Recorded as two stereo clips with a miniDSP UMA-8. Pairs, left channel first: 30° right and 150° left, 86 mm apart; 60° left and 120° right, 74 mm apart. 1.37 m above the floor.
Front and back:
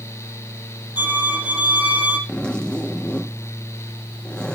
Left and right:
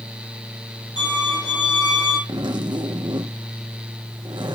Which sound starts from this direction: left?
A violin, at 1.0 s.